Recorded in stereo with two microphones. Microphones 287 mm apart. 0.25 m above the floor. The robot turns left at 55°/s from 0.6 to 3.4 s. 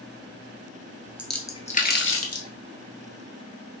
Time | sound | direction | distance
1.2 | a splash | 5° right (ahead or behind) | 0.9 m